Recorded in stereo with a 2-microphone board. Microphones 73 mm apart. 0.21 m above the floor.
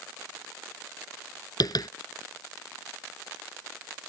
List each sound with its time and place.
1.6 s tapping: 65° left (ahead or behind)